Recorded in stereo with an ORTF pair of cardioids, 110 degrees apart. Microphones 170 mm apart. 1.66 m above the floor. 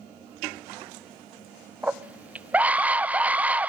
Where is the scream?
10° right, 0.7 m.